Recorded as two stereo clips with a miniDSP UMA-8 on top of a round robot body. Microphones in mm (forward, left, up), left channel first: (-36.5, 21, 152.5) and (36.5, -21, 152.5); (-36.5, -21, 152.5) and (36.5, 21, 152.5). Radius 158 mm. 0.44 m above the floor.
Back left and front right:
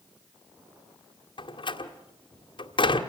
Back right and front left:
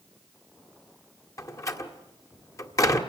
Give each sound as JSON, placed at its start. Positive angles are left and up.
{"t": 1.4, "sound": "a door slam", "azimuth_deg": 160, "distance_m": 1.9}